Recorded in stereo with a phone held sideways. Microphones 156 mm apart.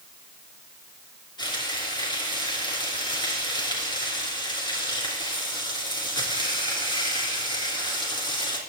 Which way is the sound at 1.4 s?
30° left (ahead or behind).